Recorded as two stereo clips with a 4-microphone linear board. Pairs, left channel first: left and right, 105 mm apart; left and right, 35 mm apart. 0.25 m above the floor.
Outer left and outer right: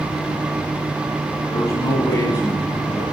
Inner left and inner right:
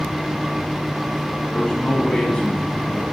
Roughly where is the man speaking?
Left.